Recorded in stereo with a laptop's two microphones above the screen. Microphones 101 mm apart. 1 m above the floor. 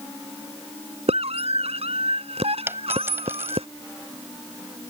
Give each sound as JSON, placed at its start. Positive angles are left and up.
{"t": 1.1, "sound": "a scream", "side_deg": -75}
{"t": 2.7, "sound": "a dropped coin", "side_deg": -25}